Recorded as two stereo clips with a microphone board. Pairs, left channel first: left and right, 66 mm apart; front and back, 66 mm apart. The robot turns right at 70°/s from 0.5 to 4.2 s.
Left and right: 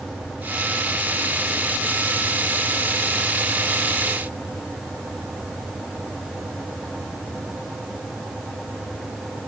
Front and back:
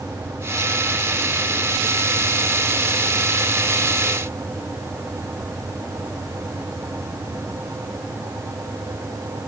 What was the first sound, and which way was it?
Only background noise.